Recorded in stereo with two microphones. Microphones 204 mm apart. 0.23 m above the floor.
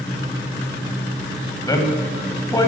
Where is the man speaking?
15° left (ahead or behind), 1.1 m.